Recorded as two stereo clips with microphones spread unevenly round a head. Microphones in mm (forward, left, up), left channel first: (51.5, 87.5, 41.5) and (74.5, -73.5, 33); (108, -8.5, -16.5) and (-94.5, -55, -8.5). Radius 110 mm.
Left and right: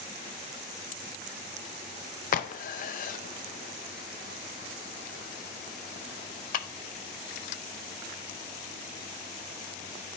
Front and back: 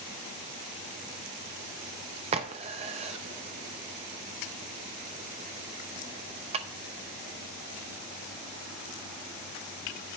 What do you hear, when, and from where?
2.3 s a crack: 130° left, 0.5 m